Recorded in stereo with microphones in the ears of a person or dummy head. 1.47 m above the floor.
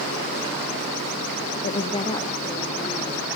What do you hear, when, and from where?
1.6 s a woman speaking: 40° left (ahead or behind), 1.0 m; by 3.2 s 20° left (ahead or behind), 3.5 m